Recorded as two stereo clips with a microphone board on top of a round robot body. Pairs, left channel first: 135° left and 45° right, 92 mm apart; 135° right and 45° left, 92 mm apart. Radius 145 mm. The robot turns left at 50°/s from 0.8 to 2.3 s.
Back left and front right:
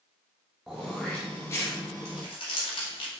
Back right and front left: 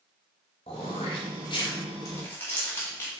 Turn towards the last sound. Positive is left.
turn(degrees=160)